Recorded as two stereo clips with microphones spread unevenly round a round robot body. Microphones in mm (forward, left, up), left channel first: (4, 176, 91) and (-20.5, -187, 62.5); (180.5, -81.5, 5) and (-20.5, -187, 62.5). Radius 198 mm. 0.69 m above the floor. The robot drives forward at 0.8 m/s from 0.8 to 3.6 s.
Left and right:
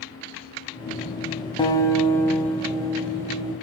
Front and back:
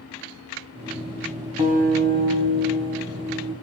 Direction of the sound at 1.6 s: 160° left.